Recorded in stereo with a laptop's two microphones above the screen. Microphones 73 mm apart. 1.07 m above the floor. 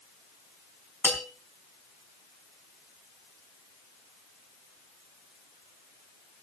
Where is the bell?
20° left (ahead or behind), 3.5 m.